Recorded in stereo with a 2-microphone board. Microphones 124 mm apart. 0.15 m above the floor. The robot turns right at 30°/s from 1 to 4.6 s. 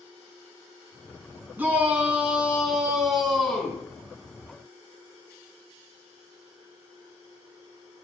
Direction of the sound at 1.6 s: 15° right (ahead or behind).